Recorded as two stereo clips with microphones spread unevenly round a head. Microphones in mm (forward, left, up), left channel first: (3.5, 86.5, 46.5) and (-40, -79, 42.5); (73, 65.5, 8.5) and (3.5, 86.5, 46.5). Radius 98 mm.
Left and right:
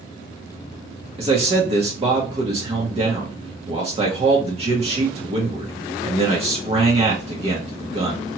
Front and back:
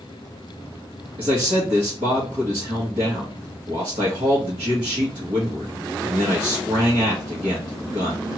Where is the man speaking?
160° right, 0.9 m.